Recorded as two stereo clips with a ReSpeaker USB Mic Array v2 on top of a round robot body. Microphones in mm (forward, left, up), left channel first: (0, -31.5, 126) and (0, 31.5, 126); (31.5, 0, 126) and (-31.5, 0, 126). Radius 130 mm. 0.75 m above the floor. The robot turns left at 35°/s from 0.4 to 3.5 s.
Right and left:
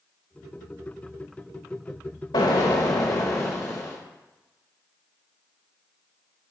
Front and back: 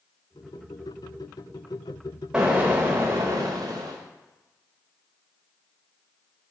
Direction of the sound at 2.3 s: 105° right.